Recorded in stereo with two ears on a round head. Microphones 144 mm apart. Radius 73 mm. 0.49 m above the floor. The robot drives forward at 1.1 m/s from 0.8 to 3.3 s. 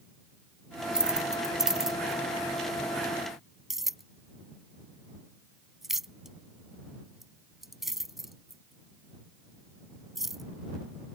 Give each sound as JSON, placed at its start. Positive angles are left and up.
{"t": 0.9, "sound": "keys jangling", "side_deg": -5}